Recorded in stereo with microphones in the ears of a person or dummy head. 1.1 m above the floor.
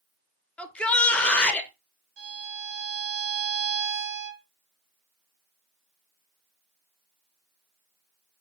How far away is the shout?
About 0.5 m.